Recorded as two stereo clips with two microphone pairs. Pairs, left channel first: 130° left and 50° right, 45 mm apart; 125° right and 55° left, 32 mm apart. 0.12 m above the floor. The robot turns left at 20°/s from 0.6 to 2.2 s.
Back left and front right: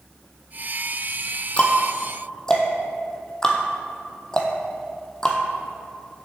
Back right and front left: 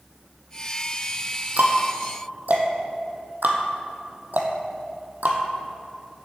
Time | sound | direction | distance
1.6 | ticking | 75° left | 1.2 m